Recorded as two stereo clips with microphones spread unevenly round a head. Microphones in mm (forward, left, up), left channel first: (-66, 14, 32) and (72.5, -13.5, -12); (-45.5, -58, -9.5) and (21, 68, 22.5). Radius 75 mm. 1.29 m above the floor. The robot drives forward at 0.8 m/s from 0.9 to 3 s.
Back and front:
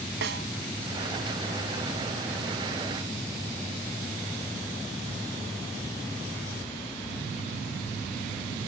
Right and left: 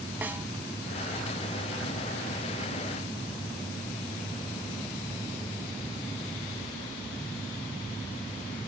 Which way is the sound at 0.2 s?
15° right.